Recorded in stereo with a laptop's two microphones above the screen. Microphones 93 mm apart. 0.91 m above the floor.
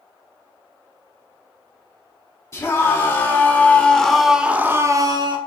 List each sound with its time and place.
2.5 s a scream: 30° left (ahead or behind), 3.5 m; by 5.4 s 55° right (ahead or behind), 1.5 m